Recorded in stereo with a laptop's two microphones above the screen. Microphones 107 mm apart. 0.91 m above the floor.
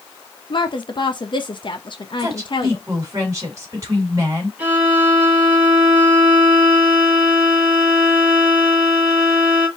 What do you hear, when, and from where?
0.5 s a woman speaking: 45° left (ahead or behind), 0.8 m
2.2 s a woman speaking: 30° right (ahead or behind), 2.5 m
4.6 s a violin: 15° right (ahead or behind), 1.9 m